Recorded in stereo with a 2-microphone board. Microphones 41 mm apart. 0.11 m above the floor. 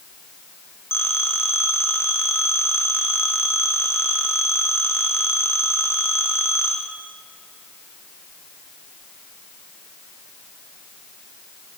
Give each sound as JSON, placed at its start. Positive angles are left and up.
{"t": 0.9, "sound": "a phone ringing", "side_deg": 80, "distance_m": 3.5}